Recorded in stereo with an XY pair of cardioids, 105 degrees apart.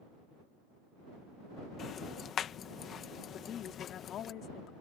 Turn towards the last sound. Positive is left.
turn(degrees=70)